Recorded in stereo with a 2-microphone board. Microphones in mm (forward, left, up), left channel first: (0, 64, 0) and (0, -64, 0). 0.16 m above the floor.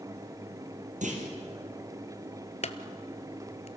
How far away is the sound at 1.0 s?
About 4 m.